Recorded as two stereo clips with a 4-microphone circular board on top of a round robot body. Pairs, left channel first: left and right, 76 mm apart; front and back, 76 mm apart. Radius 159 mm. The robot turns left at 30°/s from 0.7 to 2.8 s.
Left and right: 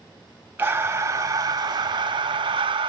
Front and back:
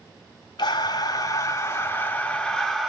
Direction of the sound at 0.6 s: 25° right.